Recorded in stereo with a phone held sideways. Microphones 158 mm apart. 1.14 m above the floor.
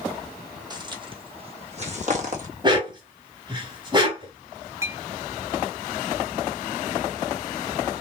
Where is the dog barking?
30° right (ahead or behind), 1.8 m.